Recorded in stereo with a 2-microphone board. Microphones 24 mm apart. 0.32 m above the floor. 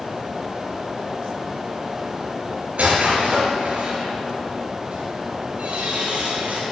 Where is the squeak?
60° right (ahead or behind), 3.5 m.